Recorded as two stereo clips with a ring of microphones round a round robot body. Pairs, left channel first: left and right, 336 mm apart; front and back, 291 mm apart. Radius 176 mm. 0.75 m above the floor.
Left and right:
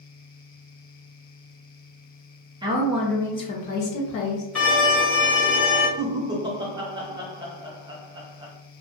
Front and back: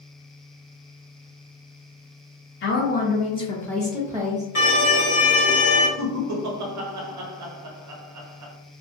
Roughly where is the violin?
Ahead.